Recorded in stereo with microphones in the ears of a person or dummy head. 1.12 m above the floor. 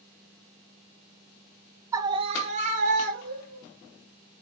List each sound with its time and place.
1.9 s a scream: 15° right (ahead or behind), 0.5 m; by 3.6 s 50° right (ahead or behind), 1.3 m